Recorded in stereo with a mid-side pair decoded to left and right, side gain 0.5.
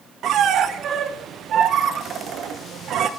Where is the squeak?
60° right, 0.6 m.